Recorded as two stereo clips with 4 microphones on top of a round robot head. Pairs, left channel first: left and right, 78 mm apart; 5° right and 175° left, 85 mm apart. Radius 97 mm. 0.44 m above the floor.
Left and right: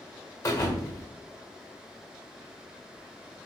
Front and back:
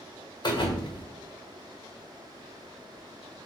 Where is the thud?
30° left, 1.4 m.